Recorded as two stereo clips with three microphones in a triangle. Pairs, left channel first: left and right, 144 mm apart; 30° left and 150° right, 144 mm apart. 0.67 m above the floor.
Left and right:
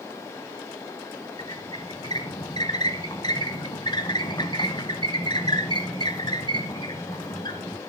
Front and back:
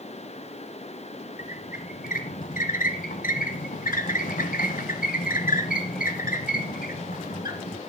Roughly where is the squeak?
Ahead left.